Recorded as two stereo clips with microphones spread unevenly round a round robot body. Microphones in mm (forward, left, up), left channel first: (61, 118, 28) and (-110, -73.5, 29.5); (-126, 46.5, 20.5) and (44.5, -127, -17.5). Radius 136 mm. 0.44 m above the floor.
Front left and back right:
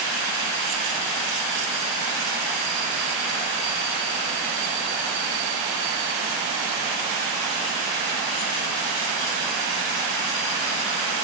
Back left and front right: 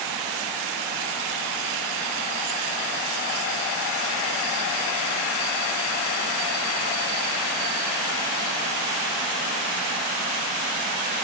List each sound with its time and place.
Only background noise.